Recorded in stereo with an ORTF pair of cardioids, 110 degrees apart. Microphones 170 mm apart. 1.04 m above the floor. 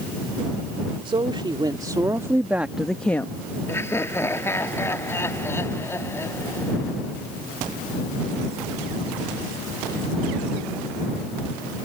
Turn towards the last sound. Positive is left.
turn(degrees=15)